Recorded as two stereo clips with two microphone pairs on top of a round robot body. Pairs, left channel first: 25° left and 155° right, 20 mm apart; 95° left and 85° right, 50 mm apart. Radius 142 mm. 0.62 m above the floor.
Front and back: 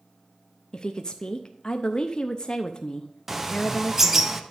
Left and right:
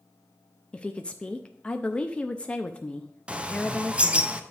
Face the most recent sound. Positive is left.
turn(degrees=-100)